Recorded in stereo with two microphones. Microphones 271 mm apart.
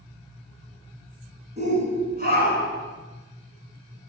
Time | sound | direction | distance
1.6 | a shout | 25° right (ahead or behind) | 2.5 m